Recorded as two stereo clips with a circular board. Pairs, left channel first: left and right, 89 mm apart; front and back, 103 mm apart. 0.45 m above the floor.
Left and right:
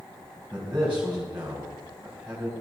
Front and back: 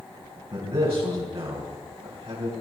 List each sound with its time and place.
0.5 s a man speaking: 165° right, 3 m